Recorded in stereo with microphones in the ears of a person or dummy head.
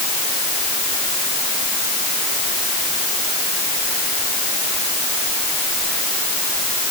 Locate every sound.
Only background noise.